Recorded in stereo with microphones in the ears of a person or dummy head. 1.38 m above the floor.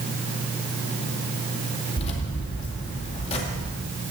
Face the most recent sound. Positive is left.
turn(degrees=35)  # may be behind; listen again after turning